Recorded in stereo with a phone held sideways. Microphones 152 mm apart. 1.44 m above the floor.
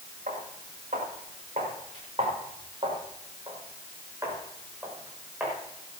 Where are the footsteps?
65° right (ahead or behind), 7 m; by 5.5 s 5° right (ahead or behind), 7 m.